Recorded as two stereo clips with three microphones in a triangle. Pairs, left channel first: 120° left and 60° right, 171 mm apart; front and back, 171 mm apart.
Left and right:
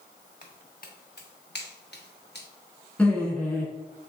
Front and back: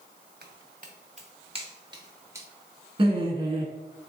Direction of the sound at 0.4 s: 160° left.